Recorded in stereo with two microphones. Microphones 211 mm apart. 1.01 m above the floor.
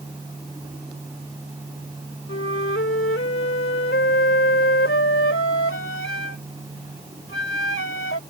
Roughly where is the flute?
Left.